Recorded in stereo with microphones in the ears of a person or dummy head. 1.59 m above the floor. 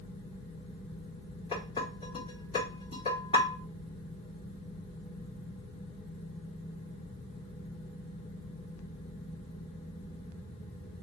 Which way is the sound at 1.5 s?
25° left (ahead or behind).